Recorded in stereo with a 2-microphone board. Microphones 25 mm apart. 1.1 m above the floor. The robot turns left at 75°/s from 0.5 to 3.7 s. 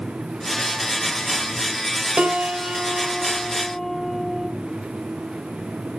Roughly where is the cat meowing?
I don't hear a cat meowing.